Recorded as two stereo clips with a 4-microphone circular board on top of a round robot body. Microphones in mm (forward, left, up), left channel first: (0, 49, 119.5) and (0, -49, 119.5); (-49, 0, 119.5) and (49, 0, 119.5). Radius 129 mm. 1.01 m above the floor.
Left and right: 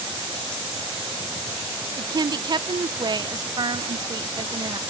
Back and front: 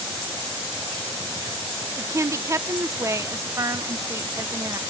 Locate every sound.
2.0 s a woman speaking: 55° right, 0.9 m